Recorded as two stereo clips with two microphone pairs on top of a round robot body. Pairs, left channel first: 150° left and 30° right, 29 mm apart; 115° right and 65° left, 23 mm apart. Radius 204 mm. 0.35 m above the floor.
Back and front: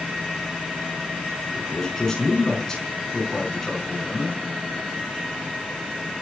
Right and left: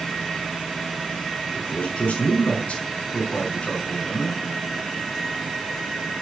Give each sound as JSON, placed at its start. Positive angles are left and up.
{"t": 1.5, "sound": "a man speaking", "azimuth_deg": -140, "distance_m": 6.0}